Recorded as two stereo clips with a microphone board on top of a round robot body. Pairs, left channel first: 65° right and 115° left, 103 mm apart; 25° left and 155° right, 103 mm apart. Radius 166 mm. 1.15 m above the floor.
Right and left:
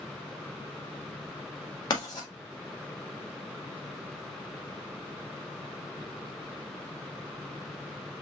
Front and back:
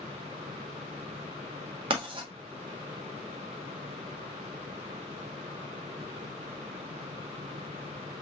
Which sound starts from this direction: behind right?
Writing, at 1.9 s.